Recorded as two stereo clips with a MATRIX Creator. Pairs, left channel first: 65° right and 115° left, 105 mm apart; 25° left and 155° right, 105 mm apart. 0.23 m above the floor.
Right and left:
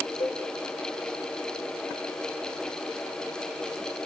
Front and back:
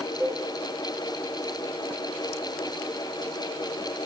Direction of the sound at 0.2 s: 85° right.